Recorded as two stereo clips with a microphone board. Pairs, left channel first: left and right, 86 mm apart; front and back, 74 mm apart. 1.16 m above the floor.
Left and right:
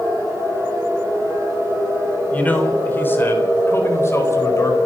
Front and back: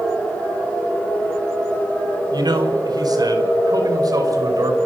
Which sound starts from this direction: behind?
A man speaking, at 2.3 s.